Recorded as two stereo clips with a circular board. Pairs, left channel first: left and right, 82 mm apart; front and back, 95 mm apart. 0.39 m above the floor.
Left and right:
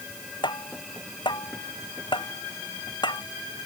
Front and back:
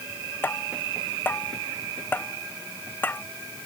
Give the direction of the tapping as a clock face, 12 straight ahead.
10 o'clock.